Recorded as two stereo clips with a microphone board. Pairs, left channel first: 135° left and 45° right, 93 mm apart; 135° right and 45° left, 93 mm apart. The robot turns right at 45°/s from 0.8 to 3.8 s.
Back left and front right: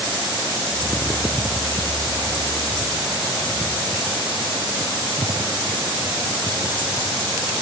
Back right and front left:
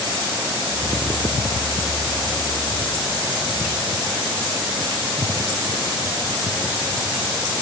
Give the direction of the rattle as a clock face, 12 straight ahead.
No rattle in this recording.